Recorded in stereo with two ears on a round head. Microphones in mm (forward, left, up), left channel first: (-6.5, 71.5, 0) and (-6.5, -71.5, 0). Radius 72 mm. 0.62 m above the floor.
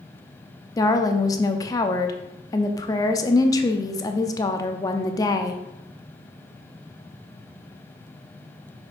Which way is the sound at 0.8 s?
25° left (ahead or behind).